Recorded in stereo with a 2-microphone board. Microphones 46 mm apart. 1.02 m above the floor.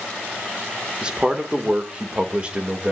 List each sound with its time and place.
1.0 s a man speaking: 20° right (ahead or behind), 2 m; by 2.9 s 25° right (ahead or behind), 3 m